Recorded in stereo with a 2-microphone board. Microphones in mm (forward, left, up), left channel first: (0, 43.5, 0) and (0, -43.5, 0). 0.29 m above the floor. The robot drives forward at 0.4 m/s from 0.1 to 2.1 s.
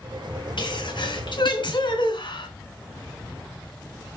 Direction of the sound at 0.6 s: 65° left (ahead or behind).